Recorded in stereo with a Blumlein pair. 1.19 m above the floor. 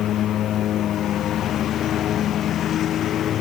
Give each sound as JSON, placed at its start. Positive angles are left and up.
{"t": 0.0, "sound": "a lawn mower", "azimuth_deg": 30}